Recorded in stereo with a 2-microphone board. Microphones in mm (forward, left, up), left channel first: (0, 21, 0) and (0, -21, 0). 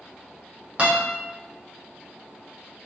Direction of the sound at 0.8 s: 40° right (ahead or behind).